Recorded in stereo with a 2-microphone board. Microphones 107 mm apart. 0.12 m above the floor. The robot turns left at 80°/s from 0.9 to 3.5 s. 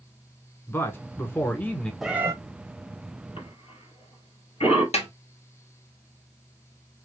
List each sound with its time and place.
0.7 s a man speaking: 20° left (ahead or behind), 1.0 m; by 1.9 s 5° left (ahead or behind), 1.0 m
2.0 s a cat meowing: centre (ahead or behind), 0.7 m; by 2.3 s 25° right (ahead or behind), 0.7 m
3.4 s a cough: 55° left (ahead or behind), 3 m
4.9 s a snare drum: 65° left (ahead or behind), 1.8 m